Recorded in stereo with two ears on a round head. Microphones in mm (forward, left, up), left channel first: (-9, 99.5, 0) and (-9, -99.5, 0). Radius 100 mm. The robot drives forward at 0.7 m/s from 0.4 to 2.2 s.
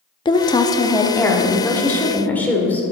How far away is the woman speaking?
About 0.6 m.